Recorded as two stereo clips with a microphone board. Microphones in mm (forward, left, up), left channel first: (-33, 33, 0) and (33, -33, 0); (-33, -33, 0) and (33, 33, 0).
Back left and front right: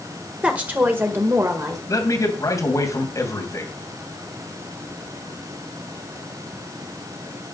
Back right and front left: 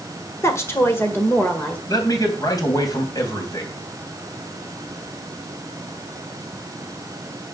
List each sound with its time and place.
0.4 s a woman speaking: 110° right, 1.6 m; by 1.8 s 65° right, 1.6 m
1.9 s a man speaking: 175° right, 3 m